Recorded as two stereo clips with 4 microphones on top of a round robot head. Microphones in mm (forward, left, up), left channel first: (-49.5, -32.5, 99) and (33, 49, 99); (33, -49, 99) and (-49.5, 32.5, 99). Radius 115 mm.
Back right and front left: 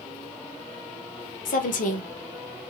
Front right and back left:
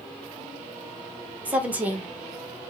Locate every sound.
1.4 s a woman speaking: 145° right, 0.7 m